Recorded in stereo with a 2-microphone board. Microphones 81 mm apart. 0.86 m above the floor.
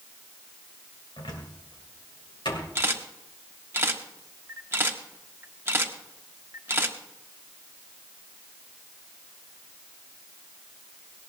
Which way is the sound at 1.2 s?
85° left.